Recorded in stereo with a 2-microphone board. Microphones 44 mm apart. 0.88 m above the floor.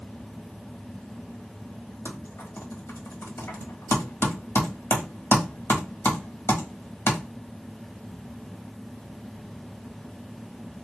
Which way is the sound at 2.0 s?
70° left (ahead or behind).